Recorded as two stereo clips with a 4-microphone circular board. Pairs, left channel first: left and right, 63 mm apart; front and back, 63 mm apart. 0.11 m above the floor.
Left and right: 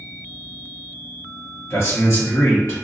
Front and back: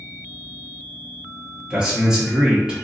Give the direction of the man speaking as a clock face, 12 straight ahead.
8 o'clock.